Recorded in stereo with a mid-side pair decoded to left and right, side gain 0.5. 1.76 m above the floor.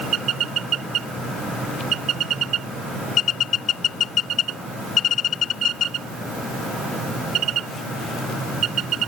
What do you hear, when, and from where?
Only background noise.